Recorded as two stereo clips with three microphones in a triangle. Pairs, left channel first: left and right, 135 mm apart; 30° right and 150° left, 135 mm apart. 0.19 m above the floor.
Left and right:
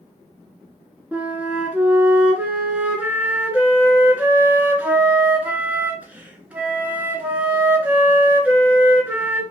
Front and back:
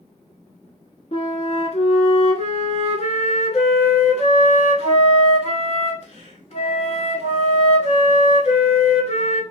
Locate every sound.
1.1 s a flute: 10° right, 0.8 m